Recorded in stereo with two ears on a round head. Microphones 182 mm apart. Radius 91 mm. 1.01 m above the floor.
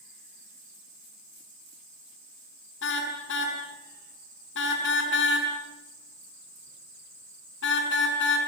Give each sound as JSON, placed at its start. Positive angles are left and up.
{"t": 2.8, "sound": "a car horn", "side_deg": 60, "distance_m": 5.5}